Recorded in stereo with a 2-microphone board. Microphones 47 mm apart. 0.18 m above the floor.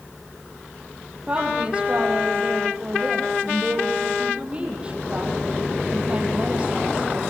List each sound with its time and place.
1.3 s a woman speaking: 25° right (ahead or behind), 6 m